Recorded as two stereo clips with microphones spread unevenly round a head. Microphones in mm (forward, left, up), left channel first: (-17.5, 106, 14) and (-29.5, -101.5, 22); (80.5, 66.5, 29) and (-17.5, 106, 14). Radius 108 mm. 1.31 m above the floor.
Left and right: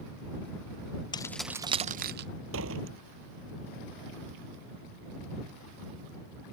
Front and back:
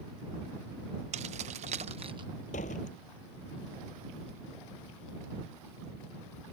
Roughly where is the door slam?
Ahead right.